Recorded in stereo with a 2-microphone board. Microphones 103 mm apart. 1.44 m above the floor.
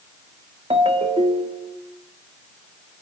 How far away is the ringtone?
About 1.9 m.